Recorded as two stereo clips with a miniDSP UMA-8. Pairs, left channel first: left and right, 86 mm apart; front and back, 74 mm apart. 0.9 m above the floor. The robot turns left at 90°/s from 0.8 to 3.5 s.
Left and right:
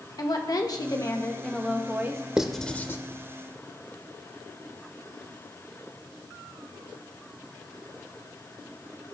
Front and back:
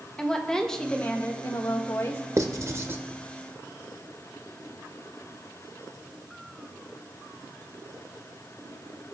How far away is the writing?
About 0.7 m.